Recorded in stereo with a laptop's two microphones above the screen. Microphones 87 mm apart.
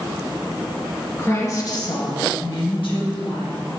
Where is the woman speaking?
25° left (ahead or behind), 1.2 m; by 3.6 s 70° left (ahead or behind), 1.5 m.